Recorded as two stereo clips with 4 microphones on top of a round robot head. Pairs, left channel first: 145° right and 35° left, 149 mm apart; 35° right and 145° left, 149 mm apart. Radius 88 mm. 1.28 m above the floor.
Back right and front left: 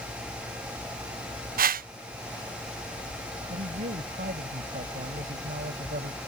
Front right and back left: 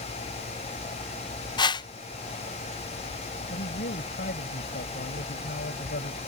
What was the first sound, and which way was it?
A whoosh, 25° left.